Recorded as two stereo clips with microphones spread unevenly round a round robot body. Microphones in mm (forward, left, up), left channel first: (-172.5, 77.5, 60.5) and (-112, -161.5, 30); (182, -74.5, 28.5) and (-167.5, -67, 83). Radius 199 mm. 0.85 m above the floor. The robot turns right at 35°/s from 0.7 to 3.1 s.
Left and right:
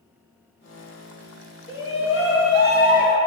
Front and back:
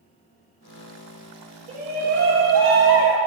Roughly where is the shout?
Left.